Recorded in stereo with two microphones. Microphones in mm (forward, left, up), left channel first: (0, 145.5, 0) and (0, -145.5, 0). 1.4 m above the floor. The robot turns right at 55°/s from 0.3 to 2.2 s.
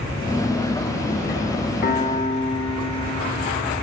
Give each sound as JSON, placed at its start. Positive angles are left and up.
{"t": 1.8, "sound": "a piano", "side_deg": 35, "distance_m": 0.5}